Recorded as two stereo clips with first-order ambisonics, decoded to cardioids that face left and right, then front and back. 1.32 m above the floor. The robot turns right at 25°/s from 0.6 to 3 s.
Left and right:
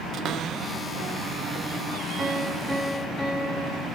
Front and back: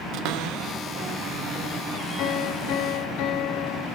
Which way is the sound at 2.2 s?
15° right.